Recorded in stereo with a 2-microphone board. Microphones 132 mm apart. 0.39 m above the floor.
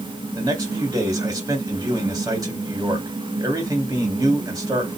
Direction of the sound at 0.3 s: 30° right (ahead or behind).